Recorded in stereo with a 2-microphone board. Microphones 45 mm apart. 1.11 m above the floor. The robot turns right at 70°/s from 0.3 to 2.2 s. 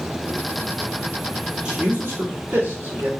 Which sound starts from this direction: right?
A man speaking, at 1.6 s.